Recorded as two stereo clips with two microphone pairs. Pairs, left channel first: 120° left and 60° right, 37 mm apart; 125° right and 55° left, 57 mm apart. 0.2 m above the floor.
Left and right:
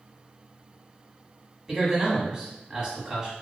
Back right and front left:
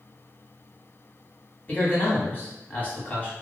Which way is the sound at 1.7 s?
130° right.